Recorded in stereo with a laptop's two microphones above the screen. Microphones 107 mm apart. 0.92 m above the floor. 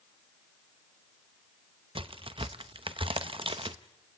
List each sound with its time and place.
1.9 s a crack: 55° right (ahead or behind), 0.7 m